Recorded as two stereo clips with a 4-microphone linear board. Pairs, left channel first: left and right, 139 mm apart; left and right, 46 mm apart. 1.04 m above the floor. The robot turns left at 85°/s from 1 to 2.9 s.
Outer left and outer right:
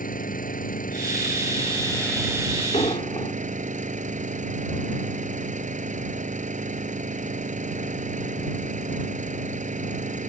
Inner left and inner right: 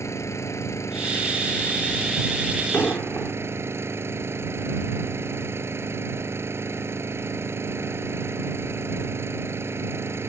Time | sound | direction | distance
0.0 | an engine running | 100° left | ?
2.7 | an explosion | 55° left (ahead or behind) | ?